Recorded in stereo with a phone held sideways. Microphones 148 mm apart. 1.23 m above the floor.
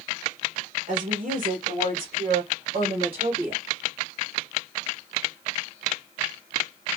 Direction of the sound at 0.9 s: 70° right (ahead or behind).